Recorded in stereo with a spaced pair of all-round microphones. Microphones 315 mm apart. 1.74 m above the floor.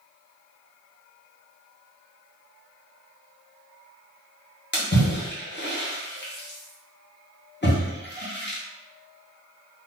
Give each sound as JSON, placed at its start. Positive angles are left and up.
{"t": 4.7, "sound": "a splash", "side_deg": 35, "distance_m": 0.9}